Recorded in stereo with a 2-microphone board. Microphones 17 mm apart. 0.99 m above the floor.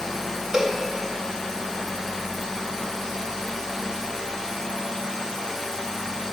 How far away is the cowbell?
About 1.2 m.